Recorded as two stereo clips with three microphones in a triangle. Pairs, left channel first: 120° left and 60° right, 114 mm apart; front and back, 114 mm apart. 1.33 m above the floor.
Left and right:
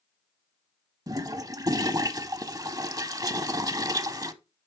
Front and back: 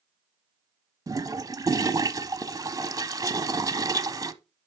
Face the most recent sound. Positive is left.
turn(degrees=-115)